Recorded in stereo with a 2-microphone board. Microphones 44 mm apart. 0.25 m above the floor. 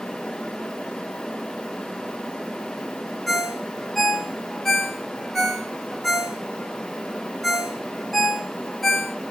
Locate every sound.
3.3 s a ringtone: 5° left (ahead or behind), 1.5 m